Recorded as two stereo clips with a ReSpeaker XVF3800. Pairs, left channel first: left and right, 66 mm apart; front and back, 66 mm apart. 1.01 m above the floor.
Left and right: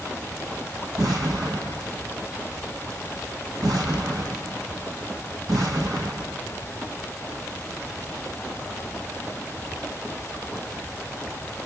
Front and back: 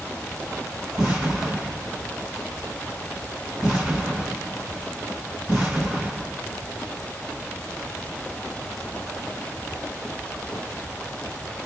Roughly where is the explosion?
Right.